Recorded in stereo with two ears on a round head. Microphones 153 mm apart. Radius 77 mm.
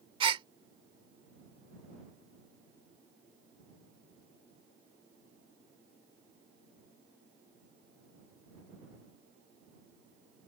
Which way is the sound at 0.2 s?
30° right (ahead or behind).